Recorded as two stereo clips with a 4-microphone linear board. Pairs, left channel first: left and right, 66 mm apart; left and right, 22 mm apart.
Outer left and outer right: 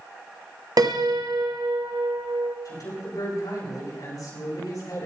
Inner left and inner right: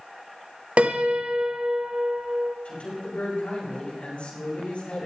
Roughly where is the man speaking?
Left.